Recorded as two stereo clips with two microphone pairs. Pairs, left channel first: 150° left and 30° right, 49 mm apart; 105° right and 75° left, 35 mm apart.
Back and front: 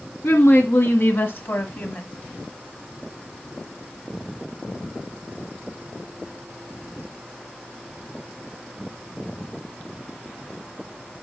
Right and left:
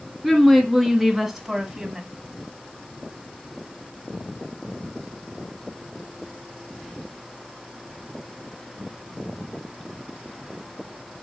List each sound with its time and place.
0.2 s a woman speaking: 170° left, 1.9 m; by 2.0 s 135° left, 1.2 m